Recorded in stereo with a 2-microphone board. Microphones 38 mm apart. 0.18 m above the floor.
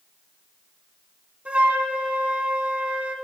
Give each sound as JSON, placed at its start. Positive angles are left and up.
{"t": 1.4, "sound": "a flute", "side_deg": -30, "distance_m": 0.9}